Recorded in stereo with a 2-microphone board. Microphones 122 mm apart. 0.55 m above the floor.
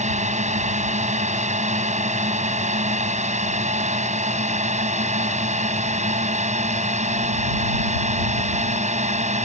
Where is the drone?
70° right (ahead or behind).